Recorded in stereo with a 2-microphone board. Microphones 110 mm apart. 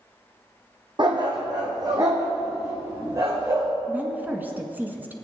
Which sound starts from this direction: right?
A dog barking, at 1.0 s.